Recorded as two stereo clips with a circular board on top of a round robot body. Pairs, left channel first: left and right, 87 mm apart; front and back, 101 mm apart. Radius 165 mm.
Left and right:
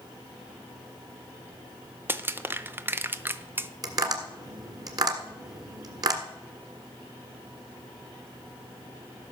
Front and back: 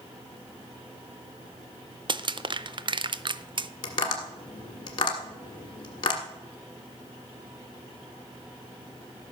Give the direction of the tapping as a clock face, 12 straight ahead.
2 o'clock.